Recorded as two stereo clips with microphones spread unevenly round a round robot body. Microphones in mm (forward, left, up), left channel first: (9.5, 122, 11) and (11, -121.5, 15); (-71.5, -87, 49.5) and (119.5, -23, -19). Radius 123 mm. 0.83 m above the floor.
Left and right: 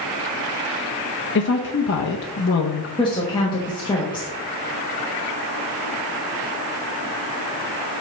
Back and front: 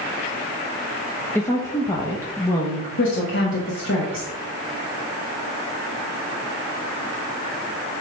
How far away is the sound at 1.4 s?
About 0.6 m.